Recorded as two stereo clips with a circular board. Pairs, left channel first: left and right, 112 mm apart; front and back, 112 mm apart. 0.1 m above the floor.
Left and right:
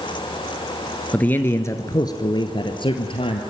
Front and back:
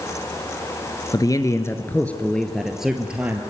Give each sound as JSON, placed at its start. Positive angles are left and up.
{"t": 1.1, "sound": "a man speaking", "azimuth_deg": 20, "distance_m": 1.5}